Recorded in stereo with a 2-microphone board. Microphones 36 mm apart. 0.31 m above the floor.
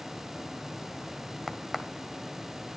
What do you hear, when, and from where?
1.5 s a crack: 10° right (ahead or behind), 1.5 m